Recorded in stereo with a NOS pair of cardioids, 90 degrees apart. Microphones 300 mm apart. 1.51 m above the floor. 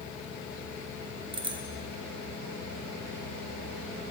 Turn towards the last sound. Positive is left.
turn(degrees=-15)